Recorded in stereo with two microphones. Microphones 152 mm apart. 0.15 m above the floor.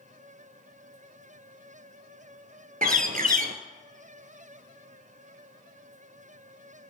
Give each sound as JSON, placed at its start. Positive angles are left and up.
{"t": 2.8, "sound": "a bird", "side_deg": -60, "distance_m": 0.6}